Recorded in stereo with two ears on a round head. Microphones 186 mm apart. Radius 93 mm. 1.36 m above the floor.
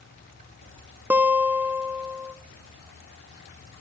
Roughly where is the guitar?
Centre.